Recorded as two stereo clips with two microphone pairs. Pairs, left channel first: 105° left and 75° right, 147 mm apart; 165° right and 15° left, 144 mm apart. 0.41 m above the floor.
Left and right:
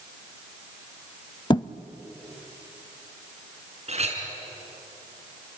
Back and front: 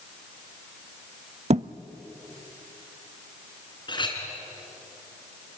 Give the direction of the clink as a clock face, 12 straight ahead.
4 o'clock.